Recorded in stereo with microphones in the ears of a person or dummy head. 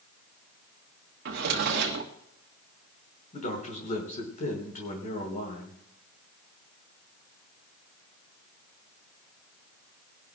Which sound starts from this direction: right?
A drawer, at 1.2 s.